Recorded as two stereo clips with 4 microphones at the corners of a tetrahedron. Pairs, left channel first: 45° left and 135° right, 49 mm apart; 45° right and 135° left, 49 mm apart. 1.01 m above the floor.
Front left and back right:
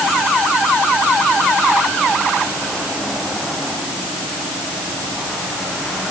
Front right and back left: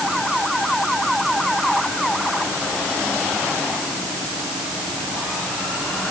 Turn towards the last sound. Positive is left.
No sound to turn to.